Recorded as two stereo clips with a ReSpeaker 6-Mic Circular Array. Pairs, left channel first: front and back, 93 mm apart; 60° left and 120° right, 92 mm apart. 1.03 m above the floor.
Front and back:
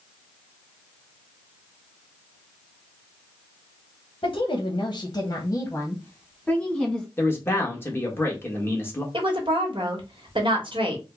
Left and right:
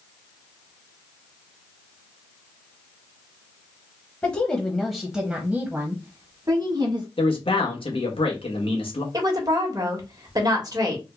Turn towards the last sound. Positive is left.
turn(degrees=-165)